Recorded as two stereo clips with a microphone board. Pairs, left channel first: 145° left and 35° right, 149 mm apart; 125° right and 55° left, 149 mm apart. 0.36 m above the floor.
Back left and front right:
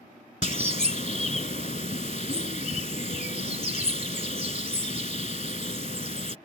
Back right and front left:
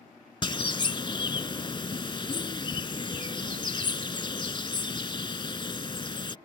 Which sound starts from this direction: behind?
A bird, at 0.4 s.